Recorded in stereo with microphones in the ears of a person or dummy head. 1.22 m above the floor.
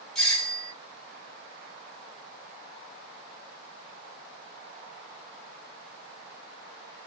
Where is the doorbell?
Centre (ahead or behind), 1.2 m.